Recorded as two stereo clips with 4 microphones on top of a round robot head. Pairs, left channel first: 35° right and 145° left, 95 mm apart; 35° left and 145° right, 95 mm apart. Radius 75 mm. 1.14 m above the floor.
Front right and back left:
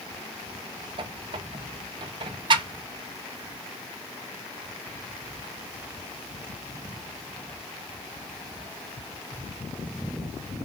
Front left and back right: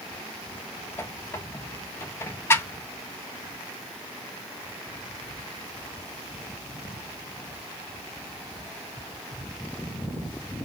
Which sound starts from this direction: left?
A squeak, at 1.0 s.